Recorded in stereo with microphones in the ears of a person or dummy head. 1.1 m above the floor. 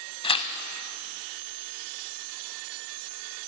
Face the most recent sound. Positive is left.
turn(degrees=30)  # may be behind; listen again after turning